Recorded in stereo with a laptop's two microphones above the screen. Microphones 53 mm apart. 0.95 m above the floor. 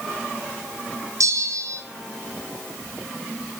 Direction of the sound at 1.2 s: 75° right (ahead or behind).